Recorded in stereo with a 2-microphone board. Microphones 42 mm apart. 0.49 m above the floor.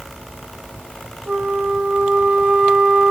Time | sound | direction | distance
1.3 | a flute | 30° right (ahead or behind) | 0.9 m